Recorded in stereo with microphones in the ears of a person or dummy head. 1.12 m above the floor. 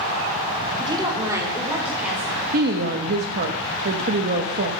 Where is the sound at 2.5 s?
55° right (ahead or behind), 0.8 m.